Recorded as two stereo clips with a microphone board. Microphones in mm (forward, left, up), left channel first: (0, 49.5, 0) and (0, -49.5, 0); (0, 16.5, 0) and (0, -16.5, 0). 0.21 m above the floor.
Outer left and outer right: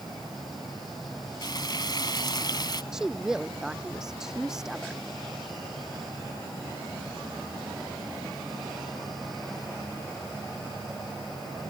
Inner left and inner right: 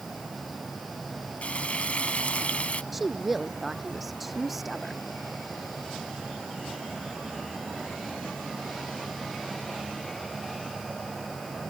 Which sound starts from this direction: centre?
A woman speaking, at 2.9 s.